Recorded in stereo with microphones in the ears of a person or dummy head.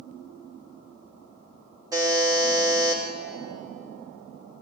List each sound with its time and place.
1.9 s a buzzer: 20° right (ahead or behind), 1.4 m